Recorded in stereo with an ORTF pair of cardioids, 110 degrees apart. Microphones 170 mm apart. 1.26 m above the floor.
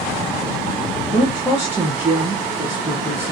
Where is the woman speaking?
10° right, 0.9 m.